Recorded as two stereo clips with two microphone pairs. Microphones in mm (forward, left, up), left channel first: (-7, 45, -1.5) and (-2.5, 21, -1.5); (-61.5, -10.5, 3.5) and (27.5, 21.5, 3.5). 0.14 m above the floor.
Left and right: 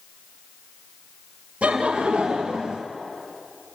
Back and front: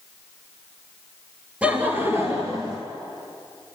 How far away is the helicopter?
I don't hear a helicopter.